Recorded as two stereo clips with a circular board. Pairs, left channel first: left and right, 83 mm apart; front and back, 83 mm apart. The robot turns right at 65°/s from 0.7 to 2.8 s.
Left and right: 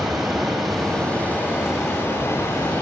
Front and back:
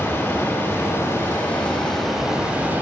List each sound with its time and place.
0.0 s running water: straight ahead, 1.4 m; by 2.8 s 135° left, 1.4 m